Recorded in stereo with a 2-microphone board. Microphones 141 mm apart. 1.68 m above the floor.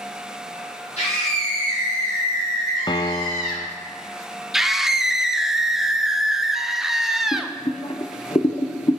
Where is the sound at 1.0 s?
55° left (ahead or behind), 3.5 m; by 3.7 s 80° left, 4 m.